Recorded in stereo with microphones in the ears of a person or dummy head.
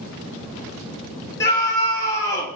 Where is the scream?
15° left (ahead or behind), 3 m.